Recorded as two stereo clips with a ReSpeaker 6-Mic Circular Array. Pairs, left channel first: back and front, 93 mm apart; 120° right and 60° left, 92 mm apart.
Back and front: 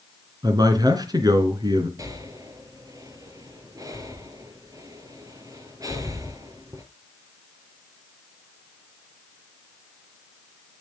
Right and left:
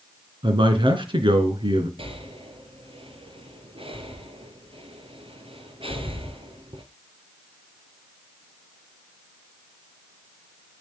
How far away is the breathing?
About 2 m.